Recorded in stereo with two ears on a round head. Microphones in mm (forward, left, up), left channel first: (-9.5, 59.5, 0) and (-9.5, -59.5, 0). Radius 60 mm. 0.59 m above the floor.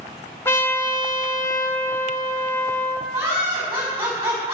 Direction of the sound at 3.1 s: 15° right (ahead or behind).